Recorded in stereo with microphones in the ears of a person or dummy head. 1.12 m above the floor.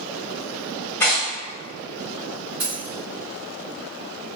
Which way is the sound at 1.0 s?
15° left (ahead or behind).